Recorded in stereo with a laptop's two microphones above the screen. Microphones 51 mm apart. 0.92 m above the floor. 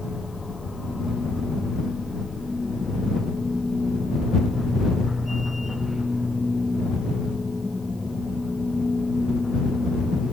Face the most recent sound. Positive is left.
turn(degrees=-5)  # may be behind; listen again after turning